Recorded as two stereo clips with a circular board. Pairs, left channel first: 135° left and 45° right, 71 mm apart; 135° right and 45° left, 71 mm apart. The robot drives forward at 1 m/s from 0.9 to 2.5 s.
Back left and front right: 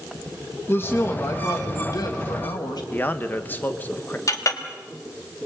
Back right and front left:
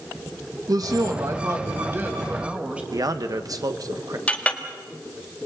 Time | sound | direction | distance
0.7 | a woman speaking | 75° left | 2 m
2.9 | a man speaking | 75° left | 1.2 m
4.3 | a clink | 160° left | 1.5 m